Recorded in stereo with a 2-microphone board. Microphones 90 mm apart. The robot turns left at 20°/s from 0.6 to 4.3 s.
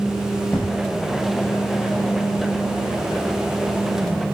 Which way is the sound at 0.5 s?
15° left (ahead or behind).